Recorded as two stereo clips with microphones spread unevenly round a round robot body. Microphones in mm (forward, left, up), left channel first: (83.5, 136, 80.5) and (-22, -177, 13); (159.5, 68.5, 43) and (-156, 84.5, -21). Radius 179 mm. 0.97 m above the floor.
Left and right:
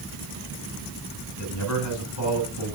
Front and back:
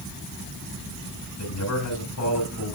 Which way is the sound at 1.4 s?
30° left.